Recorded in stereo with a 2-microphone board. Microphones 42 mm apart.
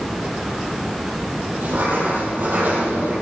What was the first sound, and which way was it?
Writing, 50° right (ahead or behind).